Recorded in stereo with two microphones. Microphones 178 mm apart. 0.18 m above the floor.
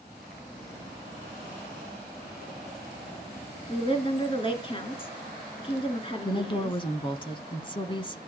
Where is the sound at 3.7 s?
30° left (ahead or behind), 2.5 m.